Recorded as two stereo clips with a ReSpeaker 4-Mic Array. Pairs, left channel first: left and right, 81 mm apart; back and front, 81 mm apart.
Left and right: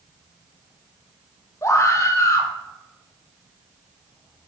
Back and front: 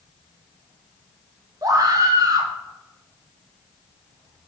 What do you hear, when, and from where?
1.6 s a scream: 40° left, 2 m